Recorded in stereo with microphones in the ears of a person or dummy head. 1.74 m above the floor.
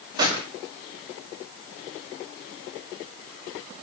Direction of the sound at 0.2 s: 20° right (ahead or behind).